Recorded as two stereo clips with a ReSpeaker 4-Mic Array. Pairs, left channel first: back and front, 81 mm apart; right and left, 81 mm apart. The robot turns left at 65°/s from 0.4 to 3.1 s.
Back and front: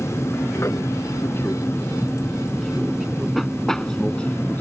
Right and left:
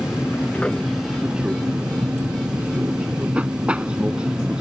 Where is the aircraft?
145° right; by 4.6 s 150° left.